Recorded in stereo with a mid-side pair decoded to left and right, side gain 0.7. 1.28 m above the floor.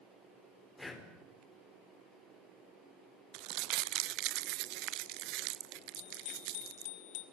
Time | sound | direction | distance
0.8 | breathing | 10° left | 4 m
3.3 | crumpling | 65° right | 0.6 m
6.0 | a bicycle bell | 70° left | 3 m